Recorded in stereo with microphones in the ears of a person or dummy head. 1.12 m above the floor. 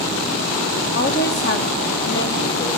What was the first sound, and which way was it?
A woman speaking, 50° left (ahead or behind).